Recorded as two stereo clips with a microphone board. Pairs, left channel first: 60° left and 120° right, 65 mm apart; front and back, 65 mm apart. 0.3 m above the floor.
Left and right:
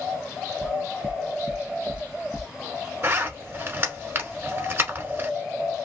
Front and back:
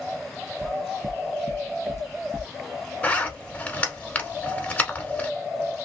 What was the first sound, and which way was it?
Footsteps, 165° right.